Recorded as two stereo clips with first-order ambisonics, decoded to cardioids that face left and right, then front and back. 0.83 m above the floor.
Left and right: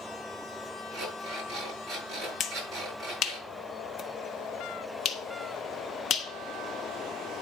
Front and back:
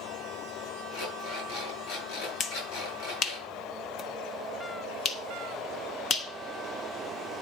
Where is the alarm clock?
20° right, 7.5 m.